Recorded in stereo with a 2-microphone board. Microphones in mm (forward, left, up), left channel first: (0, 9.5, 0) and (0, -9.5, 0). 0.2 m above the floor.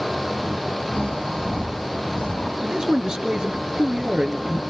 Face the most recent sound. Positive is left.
turn(degrees=-45)  # may be behind; listen again after turning